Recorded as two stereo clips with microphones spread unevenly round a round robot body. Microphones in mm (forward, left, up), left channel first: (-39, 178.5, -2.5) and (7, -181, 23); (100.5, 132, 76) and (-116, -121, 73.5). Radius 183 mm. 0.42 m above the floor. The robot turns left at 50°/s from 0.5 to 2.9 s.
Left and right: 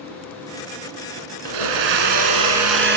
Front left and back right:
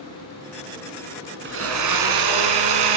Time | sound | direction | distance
1.4 | a blender | 70° right | 2.5 m